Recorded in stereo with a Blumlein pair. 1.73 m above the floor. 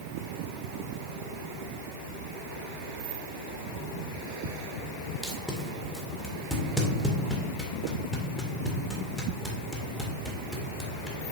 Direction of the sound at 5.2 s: 5° left.